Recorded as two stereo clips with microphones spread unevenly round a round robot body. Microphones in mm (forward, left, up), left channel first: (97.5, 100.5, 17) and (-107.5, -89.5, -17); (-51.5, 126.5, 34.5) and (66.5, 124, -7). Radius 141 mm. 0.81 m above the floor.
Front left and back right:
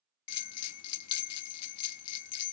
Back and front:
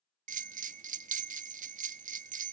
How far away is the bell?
About 0.5 m.